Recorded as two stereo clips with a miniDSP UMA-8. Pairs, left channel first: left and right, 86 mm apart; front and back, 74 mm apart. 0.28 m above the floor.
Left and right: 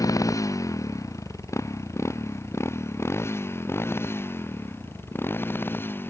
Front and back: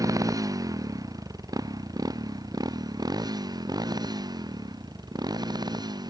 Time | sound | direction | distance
0.0 | a motorcycle | 140° left | ?